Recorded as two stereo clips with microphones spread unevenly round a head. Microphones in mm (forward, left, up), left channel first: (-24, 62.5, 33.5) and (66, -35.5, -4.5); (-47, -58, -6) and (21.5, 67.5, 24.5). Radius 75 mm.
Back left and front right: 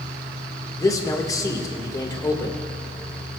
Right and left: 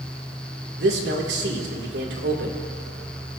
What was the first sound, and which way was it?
A man speaking, 65° left.